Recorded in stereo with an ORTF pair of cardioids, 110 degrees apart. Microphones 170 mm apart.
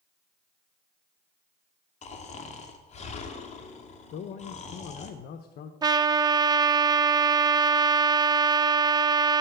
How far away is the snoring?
About 2 m.